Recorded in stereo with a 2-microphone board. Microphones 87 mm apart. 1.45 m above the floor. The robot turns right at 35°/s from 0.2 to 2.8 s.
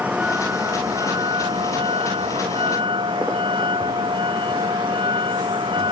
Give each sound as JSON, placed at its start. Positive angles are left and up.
{"t": 0.0, "sound": "a vehicle", "azimuth_deg": -165}